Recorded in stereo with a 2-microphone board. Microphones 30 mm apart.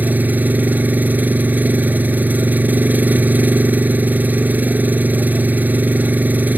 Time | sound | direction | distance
0.0 | an engine running | 85° right | ?